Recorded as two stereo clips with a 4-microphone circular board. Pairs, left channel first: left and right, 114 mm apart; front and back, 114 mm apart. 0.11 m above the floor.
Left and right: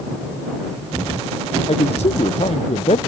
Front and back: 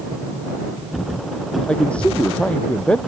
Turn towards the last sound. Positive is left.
turn(degrees=80)